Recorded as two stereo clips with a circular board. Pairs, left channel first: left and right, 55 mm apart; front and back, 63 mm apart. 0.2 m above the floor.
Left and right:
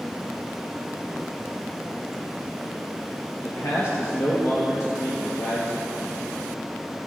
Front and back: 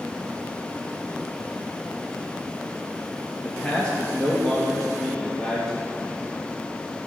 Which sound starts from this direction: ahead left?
A man speaking, at 3.4 s.